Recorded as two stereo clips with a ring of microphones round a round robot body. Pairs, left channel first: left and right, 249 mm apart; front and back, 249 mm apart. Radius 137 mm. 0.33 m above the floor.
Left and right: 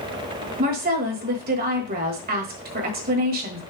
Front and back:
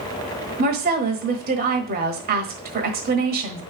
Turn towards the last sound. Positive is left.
turn(degrees=-135)